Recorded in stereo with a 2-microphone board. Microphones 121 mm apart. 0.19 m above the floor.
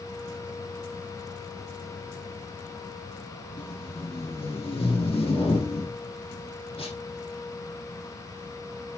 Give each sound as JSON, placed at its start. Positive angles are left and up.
{"t": 3.6, "sound": "tape being pulled", "side_deg": 50, "distance_m": 5.0}